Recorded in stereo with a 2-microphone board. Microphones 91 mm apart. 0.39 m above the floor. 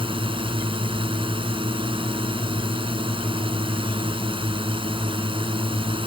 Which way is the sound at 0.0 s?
75° right (ahead or behind).